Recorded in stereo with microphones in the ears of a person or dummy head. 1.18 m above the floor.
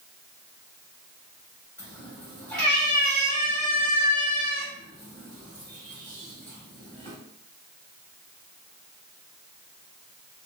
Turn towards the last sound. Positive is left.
turn(degrees=5)  # may be behind; listen again after turning